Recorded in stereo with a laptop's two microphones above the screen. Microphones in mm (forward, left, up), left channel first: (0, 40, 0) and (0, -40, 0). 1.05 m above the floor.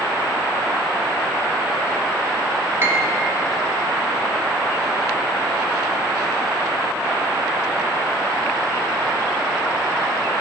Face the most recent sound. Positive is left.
turn(degrees=-30)  # may be behind; listen again after turning